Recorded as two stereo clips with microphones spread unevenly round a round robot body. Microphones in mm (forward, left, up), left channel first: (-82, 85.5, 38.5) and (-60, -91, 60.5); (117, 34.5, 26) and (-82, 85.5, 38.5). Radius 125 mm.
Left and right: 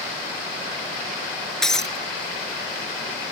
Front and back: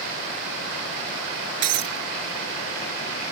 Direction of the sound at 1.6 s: 175° right.